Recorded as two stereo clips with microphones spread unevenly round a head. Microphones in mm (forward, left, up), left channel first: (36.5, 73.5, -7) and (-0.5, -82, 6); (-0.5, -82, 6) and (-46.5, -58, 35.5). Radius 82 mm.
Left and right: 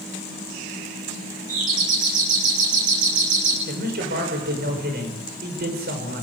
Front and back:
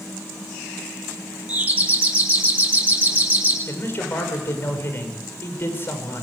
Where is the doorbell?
150° right, 7.5 m.